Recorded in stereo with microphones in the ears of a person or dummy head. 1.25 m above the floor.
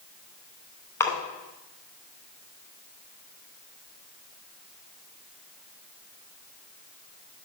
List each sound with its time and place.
1.0 s a splash: 15° left (ahead or behind), 2.5 m